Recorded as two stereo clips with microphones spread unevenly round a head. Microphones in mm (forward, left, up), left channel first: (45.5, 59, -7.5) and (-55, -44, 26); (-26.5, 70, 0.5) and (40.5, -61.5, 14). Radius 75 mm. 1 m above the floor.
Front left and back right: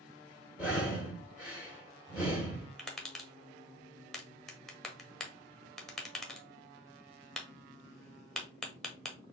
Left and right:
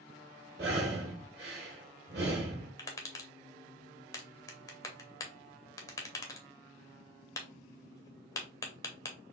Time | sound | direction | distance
0.6 | breathing | 60° right | 1.3 m
2.8 | tapping | 100° left | 0.8 m